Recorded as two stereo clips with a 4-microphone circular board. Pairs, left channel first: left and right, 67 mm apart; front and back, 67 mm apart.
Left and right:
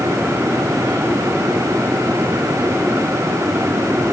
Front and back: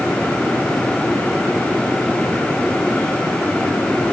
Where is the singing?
I don't hear singing.